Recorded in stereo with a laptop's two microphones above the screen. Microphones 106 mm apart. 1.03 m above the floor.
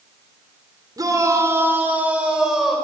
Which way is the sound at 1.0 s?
40° right (ahead or behind).